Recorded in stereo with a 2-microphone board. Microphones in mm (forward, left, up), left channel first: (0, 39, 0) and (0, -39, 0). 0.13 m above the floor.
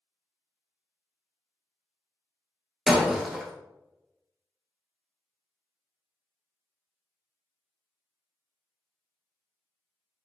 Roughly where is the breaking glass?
Centre.